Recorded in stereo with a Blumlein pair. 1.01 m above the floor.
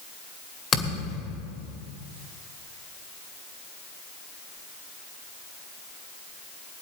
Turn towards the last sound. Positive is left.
turn(degrees=20)